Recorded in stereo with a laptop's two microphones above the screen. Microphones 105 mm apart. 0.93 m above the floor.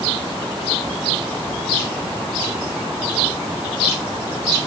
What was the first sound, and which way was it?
Only background noise.